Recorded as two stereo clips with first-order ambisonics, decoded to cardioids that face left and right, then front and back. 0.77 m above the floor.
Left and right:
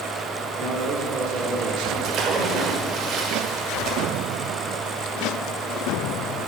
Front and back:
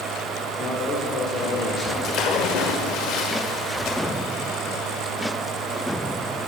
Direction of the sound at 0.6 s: 60° right.